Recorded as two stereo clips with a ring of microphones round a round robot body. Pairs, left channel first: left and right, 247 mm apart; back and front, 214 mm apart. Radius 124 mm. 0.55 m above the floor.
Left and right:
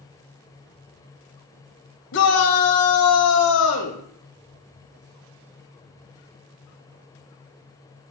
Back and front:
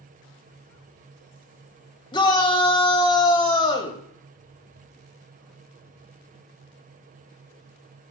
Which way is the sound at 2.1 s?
115° left.